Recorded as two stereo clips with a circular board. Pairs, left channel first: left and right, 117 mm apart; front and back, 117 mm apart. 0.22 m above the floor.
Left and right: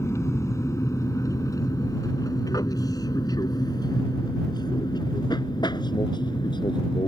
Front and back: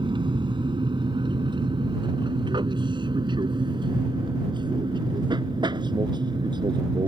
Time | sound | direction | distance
0.0 | an aircraft | 150° left | ?